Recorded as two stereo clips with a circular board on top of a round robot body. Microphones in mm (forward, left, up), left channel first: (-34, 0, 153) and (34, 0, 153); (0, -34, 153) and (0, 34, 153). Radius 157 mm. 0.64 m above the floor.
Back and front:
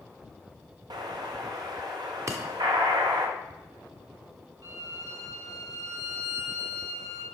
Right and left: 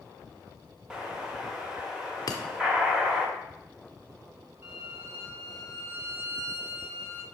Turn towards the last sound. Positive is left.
turn(degrees=30)